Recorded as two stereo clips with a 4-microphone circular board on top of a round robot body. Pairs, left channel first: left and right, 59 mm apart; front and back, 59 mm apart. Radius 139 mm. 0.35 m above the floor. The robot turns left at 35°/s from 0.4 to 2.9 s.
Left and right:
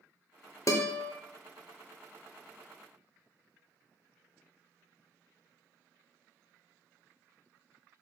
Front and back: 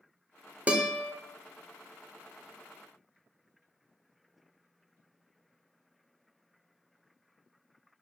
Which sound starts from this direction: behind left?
A guitar, at 0.7 s.